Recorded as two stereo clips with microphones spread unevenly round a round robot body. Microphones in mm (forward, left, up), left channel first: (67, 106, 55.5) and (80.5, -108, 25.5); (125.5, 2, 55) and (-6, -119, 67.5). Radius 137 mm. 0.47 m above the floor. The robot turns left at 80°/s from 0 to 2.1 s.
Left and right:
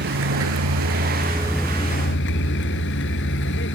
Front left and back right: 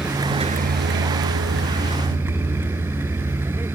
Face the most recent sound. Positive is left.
turn(degrees=140)